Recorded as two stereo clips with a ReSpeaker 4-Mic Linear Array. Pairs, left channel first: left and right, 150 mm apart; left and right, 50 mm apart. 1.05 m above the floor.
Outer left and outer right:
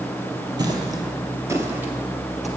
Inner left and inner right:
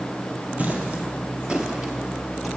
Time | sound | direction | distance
0.6 | footsteps | 30° right (ahead or behind) | 1.4 m